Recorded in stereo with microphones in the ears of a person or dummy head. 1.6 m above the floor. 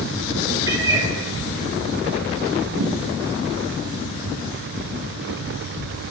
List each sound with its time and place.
0.7 s a cat meowing: 15° right (ahead or behind), 5.5 m
2.8 s a thud: 80° right, 6.5 m